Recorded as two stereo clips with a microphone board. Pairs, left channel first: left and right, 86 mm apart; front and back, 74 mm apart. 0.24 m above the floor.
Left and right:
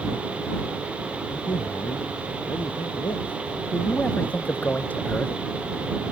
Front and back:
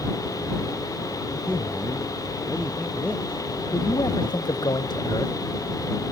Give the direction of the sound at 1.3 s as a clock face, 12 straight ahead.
9 o'clock.